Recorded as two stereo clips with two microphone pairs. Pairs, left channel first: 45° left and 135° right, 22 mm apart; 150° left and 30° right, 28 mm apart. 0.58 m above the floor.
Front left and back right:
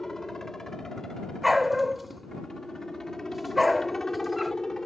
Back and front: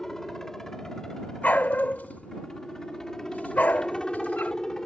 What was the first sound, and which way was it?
A helicopter, 95° left.